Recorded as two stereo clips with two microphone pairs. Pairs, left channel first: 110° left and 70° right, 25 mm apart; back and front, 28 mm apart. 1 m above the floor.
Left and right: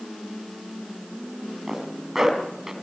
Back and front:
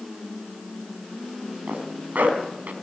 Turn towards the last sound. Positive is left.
turn(degrees=5)